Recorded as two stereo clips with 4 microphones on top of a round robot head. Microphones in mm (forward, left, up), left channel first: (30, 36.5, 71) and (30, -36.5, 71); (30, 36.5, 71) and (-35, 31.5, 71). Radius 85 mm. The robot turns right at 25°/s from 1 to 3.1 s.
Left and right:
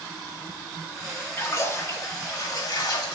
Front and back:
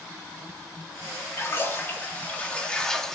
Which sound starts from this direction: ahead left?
A splash, at 1.4 s.